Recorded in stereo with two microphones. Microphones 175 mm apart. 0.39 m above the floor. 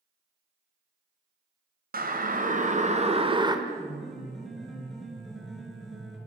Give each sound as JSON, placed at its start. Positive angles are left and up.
{"t": 1.9, "sound": "a siren", "side_deg": -55, "distance_m": 3.0}
{"t": 3.7, "sound": "a piano", "side_deg": 0, "distance_m": 7.0}